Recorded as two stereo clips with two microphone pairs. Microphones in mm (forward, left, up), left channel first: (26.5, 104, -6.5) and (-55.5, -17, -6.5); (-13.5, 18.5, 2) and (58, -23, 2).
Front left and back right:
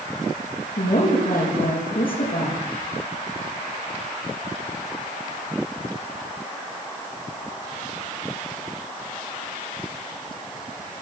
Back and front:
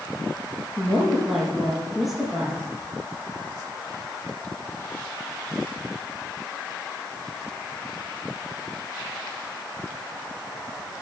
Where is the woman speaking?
60° left, 5.5 m.